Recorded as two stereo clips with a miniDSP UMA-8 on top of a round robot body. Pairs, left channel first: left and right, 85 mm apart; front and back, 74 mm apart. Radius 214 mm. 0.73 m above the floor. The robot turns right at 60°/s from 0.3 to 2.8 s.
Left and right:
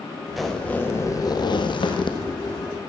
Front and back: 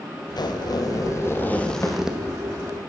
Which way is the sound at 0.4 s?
5° right.